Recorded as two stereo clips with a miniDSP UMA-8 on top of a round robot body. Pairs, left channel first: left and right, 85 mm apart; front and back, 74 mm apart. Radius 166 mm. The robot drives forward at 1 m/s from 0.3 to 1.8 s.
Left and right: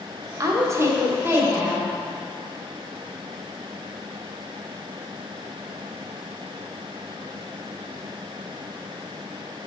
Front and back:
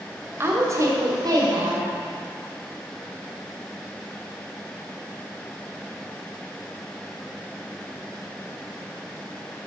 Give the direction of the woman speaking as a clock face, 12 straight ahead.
4 o'clock.